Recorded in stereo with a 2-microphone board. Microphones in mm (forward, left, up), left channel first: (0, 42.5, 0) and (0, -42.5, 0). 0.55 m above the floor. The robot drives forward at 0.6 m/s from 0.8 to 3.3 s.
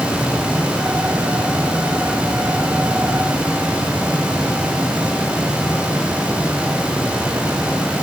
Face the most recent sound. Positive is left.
No sound to turn to.